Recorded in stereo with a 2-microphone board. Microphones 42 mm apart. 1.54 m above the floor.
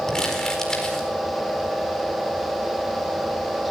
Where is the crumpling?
15° left (ahead or behind), 4.5 m.